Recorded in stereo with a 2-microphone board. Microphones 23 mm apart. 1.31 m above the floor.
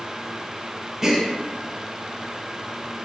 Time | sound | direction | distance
1.0 | a gasp | 20° right (ahead or behind) | 0.5 m